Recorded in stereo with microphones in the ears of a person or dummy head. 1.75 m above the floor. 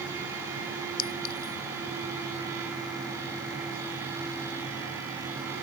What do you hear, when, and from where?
1.0 s a clink: 50° left (ahead or behind)